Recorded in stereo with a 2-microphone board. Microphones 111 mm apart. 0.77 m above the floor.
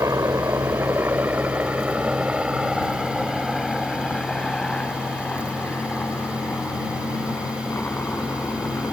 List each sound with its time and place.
0.0 s a helicopter: 30° right (ahead or behind); by 8.9 s 20° left (ahead or behind)